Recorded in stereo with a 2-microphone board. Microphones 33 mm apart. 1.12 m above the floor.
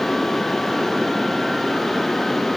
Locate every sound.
Only background noise.